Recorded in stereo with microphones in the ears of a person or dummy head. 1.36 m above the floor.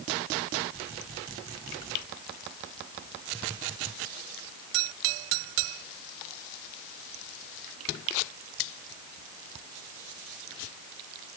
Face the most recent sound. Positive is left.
No sound to turn to.